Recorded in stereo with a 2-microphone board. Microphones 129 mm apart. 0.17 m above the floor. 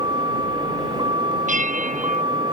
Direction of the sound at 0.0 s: 35° right (ahead or behind).